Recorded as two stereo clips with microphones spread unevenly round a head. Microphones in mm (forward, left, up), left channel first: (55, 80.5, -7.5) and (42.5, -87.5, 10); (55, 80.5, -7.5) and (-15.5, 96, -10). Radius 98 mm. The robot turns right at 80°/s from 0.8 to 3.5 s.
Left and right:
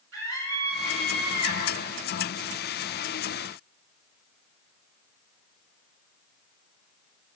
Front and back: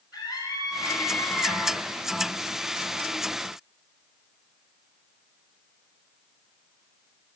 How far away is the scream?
About 7.5 m.